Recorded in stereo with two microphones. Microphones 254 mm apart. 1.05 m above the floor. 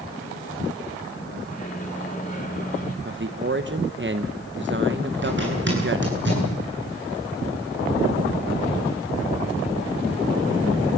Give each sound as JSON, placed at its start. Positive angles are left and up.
{"t": 1.5, "sound": "a microwave", "side_deg": 30, "distance_m": 3.0}
{"t": 3.0, "sound": "a man speaking", "side_deg": -45, "distance_m": 1.1}
{"t": 5.2, "sound": "a zipper", "side_deg": -45, "distance_m": 9.5}